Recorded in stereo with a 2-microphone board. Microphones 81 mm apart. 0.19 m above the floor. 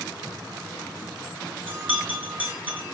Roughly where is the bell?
Right.